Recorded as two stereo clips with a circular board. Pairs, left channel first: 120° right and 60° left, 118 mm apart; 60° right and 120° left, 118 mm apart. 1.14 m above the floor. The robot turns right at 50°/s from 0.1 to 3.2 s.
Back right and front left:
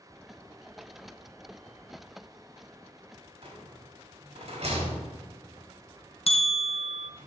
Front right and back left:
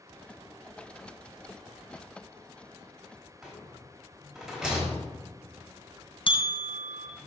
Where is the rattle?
30° left, 3.5 m.